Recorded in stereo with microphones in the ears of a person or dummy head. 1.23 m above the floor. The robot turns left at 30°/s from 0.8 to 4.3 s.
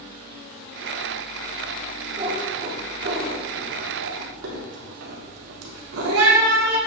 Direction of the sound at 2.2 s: 30° right (ahead or behind).